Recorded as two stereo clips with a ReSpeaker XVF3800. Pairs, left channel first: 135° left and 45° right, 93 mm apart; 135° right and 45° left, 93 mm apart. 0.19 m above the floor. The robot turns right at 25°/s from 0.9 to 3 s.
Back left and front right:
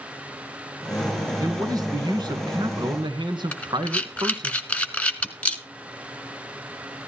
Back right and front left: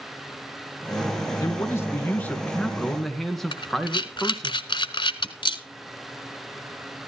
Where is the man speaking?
85° right, 2.5 m; by 4.5 s 45° right, 2.5 m.